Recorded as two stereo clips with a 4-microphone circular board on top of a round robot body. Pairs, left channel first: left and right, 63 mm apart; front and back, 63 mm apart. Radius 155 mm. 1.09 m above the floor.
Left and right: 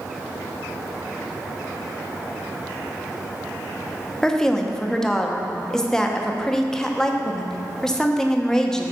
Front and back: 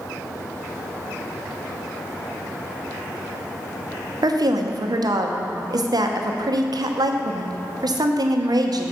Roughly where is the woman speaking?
Behind.